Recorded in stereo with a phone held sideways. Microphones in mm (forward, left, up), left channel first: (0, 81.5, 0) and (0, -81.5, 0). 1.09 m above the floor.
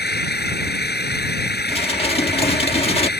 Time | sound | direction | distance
0.0 | an engine running | 85° left | ?
1.7 | dishes clattering | 35° left (ahead or behind) | ?